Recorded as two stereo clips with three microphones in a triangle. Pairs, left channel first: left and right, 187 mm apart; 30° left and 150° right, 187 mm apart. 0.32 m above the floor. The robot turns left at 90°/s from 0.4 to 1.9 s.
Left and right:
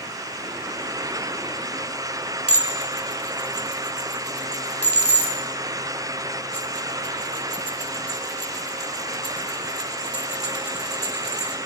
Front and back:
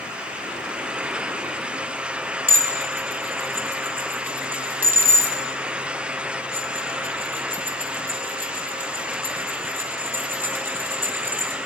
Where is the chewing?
I don't hear chewing.